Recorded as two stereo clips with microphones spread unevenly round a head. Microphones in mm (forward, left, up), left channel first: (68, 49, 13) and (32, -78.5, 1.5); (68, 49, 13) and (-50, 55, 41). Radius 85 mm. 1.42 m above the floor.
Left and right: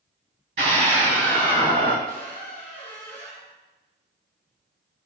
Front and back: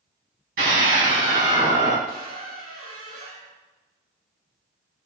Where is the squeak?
145° right, 3.5 m.